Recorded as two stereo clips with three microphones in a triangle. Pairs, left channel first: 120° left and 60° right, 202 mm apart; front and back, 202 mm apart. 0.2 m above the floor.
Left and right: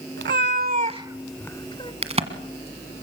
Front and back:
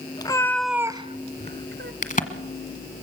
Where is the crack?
20° right, 1.5 m.